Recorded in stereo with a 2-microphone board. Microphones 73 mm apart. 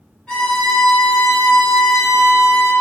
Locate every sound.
0.3 s a violin: 10° left (ahead or behind), 0.9 m